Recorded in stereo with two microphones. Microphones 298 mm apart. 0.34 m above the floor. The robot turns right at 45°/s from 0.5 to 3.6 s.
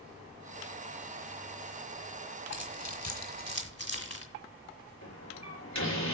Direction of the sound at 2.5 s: 65° left (ahead or behind).